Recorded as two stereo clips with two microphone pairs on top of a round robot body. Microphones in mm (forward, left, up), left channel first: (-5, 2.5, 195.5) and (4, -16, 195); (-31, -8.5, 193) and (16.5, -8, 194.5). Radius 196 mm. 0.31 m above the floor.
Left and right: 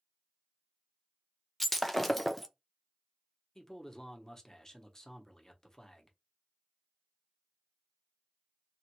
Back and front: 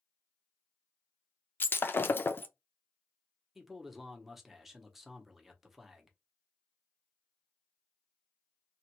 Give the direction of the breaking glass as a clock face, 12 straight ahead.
5 o'clock.